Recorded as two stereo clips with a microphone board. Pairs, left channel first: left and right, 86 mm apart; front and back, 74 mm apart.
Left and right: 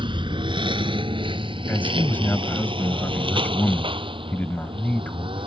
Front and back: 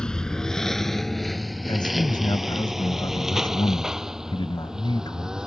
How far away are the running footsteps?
I don't hear running footsteps.